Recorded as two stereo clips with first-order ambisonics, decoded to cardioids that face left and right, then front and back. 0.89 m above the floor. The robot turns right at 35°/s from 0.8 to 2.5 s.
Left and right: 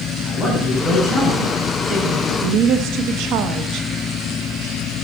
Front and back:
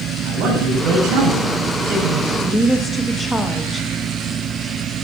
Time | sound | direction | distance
0.2 | a man speaking | 175° right | 6 m
2.4 | a woman speaking | 85° right | 0.5 m